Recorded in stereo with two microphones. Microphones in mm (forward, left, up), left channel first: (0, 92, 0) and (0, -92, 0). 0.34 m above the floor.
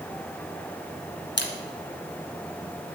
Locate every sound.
1.4 s a camera shutter: 70° left (ahead or behind), 2.0 m